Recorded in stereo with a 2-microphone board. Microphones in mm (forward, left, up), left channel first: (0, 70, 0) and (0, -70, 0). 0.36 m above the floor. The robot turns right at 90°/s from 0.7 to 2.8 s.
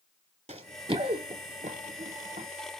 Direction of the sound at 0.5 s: 50° right (ahead or behind).